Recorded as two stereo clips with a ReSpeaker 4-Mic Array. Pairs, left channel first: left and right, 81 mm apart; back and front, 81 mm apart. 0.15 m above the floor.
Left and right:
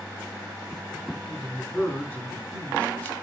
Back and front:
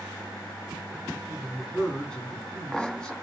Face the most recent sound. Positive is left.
turn(degrees=120)